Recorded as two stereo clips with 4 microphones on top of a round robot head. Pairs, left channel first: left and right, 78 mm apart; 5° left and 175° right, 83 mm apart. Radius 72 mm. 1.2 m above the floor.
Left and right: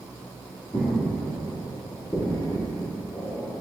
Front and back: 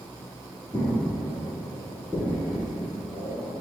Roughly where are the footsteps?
Ahead left.